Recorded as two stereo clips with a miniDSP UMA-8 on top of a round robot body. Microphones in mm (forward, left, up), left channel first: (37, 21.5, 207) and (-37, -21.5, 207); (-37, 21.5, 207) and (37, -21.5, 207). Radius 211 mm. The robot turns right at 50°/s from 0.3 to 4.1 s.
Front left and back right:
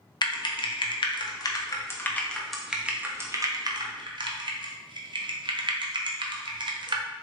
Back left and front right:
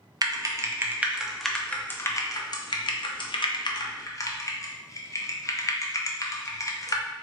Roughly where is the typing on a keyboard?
Ahead.